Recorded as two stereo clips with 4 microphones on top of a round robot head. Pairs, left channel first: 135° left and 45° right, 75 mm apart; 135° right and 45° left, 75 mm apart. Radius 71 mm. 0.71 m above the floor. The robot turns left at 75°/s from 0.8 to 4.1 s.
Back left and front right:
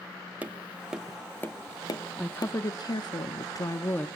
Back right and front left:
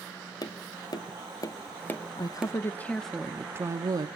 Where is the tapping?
115° right, 1.5 m; by 2.5 s 115° left, 1.5 m.